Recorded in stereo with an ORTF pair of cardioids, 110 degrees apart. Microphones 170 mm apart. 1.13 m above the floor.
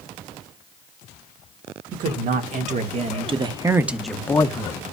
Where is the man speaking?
60° right, 1.8 m; by 4.8 s 40° left, 0.9 m.